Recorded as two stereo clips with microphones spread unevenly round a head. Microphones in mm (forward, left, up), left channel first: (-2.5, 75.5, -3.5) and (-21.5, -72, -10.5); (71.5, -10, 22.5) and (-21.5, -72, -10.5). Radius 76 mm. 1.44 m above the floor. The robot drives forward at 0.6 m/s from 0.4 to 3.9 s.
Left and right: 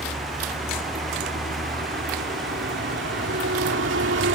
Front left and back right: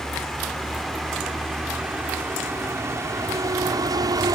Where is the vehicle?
55° right; by 4.4 s 85° right.